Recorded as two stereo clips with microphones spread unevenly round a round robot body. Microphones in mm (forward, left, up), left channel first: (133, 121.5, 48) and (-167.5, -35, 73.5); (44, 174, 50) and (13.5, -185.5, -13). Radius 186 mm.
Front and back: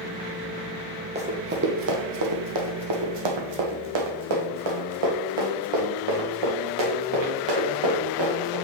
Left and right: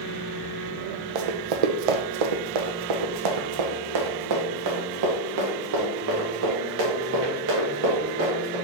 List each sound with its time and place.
1.1 s running footsteps: 80° right, 1.2 m; by 8.6 s 155° right, 4 m